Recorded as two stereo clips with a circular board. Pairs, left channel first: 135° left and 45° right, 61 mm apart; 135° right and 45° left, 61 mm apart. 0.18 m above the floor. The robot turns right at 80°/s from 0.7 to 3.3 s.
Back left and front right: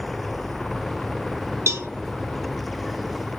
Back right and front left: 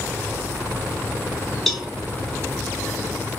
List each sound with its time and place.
1.7 s a cowbell: 55° right, 0.7 m; by 1.9 s 35° right, 0.7 m